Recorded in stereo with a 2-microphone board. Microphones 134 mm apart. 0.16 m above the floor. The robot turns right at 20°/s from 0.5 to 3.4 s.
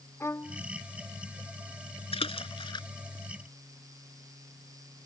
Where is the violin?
20° left (ahead or behind); by 0.6 s 15° left (ahead or behind).